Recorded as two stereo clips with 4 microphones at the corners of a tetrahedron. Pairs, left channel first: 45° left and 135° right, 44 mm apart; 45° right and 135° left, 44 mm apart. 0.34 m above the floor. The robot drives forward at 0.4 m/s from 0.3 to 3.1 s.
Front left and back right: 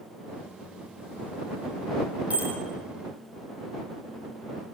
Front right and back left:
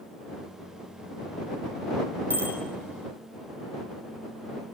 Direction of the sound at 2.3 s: 170° left.